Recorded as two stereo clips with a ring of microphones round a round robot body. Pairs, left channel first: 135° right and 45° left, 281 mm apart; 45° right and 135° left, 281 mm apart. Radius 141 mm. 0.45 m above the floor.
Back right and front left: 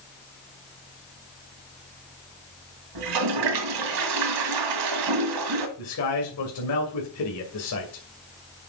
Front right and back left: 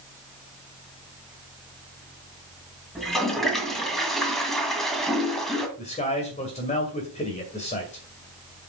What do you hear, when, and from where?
3.0 s a toilet flushing: 45° left, 1.7 m
5.8 s a man speaking: 110° right, 2.5 m